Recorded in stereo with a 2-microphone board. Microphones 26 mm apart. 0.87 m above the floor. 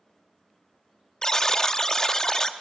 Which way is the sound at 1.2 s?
25° left (ahead or behind).